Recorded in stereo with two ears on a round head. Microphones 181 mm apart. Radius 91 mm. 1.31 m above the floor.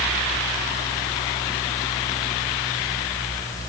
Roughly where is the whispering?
No whispering in this recording.